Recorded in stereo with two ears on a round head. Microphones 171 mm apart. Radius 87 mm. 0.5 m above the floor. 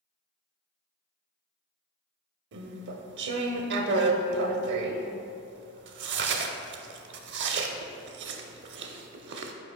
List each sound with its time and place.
2.5 s chewing: 65° right (ahead or behind), 0.5 m